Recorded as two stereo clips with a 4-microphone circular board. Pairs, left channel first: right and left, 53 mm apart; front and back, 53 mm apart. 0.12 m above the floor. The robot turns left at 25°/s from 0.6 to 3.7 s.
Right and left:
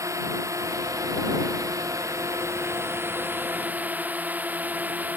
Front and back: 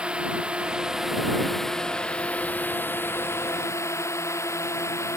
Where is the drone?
110° left; by 5.2 s 30° left.